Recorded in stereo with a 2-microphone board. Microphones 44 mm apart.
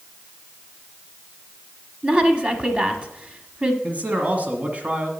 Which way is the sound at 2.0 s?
30° right (ahead or behind).